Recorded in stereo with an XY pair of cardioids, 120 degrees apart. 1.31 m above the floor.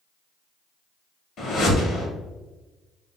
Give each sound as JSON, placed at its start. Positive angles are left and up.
{"t": 1.4, "sound": "a whoosh", "azimuth_deg": 55, "distance_m": 1.0}